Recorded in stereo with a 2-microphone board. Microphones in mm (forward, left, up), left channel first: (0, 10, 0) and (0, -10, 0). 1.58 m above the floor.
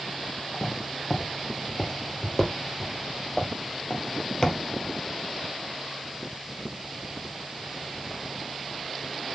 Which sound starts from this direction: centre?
Footsteps, at 0.5 s.